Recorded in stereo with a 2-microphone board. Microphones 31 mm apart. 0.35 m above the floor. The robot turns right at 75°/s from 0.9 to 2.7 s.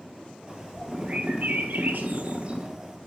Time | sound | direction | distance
0.5 | a bird | 155° right | 3 m